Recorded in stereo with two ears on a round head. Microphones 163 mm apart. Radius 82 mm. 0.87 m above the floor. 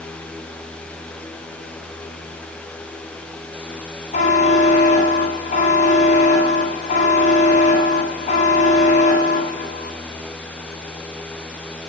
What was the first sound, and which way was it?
A buzzer, 40° left (ahead or behind).